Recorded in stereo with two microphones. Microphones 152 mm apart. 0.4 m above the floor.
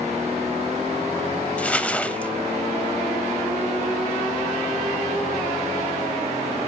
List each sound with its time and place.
1.6 s crumpling: 10° left (ahead or behind), 0.6 m